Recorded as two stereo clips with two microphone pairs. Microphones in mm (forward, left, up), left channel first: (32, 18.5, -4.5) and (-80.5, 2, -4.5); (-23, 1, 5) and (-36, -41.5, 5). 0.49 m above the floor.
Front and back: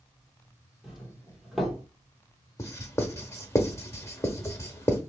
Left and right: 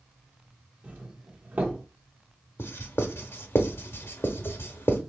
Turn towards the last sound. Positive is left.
turn(degrees=75)